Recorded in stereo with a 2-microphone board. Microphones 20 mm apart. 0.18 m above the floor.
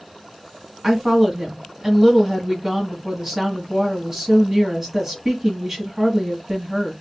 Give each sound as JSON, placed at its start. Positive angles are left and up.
{"t": 0.8, "sound": "a woman speaking", "side_deg": -20, "distance_m": 1.3}